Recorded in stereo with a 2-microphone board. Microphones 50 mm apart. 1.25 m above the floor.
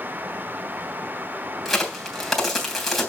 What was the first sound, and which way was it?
A crack, 5° left (ahead or behind).